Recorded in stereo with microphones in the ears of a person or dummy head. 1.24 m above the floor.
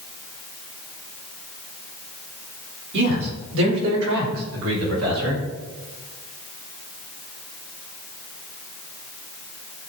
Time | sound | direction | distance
2.9 | a man speaking | 70° right (ahead or behind) | 4.5 m